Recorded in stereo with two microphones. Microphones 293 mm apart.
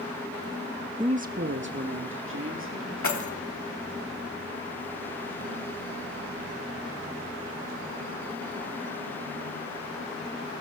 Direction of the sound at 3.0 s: 75° left (ahead or behind).